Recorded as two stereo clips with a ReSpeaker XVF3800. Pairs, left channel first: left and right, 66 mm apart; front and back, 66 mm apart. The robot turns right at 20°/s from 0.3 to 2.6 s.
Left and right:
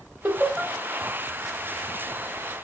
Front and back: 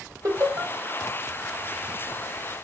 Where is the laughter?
150° right, 1.8 m; by 0.7 s 140° right, 1.8 m.